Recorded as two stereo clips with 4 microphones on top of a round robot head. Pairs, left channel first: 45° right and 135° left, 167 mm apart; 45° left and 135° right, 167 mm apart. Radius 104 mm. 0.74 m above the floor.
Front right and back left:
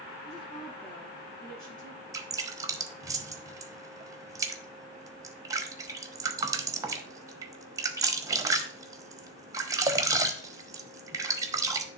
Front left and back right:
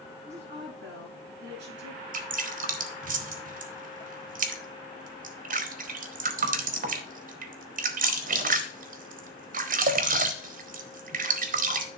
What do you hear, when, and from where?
0.2 s a woman speaking: 115° right, 5 m
2.1 s dripping: 160° right, 0.9 m